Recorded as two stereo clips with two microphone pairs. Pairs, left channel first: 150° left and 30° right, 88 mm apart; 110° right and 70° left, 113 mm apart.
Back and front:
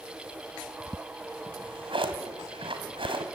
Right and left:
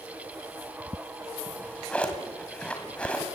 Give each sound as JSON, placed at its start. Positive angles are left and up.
{"t": 1.5, "sound": "a drawer", "azimuth_deg": -30, "distance_m": 2.5}